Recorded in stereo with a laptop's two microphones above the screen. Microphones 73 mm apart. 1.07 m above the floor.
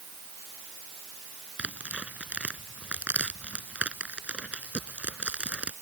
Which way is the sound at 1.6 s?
20° right (ahead or behind).